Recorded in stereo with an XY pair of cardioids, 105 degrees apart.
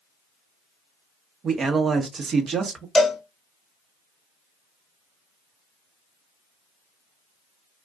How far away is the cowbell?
About 1.1 m.